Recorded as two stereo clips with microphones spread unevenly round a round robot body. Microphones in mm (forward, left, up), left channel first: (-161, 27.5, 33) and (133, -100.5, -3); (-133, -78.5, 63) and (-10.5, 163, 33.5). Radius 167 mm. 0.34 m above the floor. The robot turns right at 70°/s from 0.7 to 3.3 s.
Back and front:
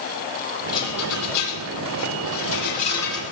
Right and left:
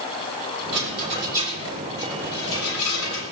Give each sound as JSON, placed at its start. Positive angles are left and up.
{"t": 0.7, "sound": "a rattle", "azimuth_deg": 80, "distance_m": 7.0}